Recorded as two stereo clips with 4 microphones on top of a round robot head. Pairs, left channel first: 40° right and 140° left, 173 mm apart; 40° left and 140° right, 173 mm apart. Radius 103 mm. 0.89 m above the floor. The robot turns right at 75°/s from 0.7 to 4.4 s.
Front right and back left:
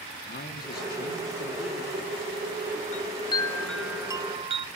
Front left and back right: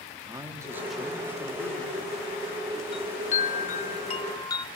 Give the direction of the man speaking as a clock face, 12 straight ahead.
2 o'clock.